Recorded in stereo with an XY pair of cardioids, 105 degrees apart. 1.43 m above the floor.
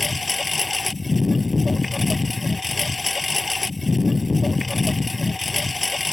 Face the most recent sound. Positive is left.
turn(degrees=20)